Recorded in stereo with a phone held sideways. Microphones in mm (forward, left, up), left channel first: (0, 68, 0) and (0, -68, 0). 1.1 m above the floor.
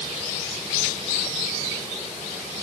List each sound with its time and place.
Only background noise.